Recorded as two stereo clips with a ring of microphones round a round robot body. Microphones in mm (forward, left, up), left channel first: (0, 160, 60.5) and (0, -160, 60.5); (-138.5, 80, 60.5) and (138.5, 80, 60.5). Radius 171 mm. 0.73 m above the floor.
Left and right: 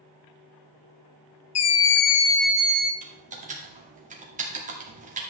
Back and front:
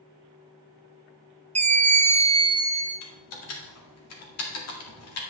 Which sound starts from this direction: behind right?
Typing on a keyboard, at 3.0 s.